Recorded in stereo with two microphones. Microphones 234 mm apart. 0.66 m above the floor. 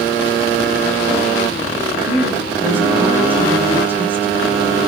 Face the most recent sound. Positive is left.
turn(degrees=-10)  # may be behind; listen again after turning